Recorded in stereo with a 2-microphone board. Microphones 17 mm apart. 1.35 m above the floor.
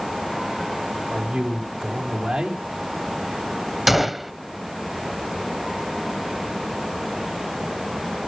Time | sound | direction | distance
1.1 | a man speaking | 75° right (ahead or behind) | 3 m
3.9 | a gunshot | 10° right (ahead or behind) | 0.9 m